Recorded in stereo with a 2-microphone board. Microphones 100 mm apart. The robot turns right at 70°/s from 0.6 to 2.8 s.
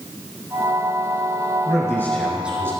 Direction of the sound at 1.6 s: 135° left.